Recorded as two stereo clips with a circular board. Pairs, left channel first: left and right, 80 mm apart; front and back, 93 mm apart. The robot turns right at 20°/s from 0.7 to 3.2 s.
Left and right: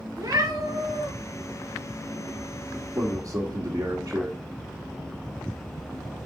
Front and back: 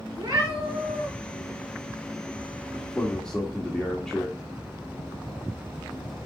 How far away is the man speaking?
About 1.3 m.